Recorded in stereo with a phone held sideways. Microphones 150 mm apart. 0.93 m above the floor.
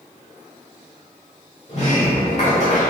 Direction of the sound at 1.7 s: 50° left (ahead or behind).